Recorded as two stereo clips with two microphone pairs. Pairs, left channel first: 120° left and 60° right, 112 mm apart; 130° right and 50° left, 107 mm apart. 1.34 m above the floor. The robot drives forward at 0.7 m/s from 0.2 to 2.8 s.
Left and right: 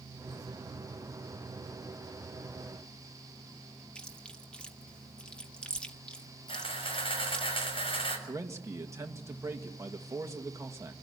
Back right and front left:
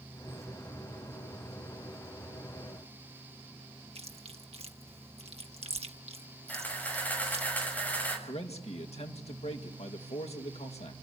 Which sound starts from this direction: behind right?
A man speaking, at 8.3 s.